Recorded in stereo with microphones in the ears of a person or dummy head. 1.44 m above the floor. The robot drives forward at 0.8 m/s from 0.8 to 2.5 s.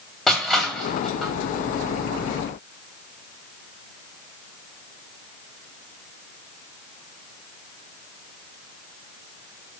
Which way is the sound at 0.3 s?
Centre (ahead or behind).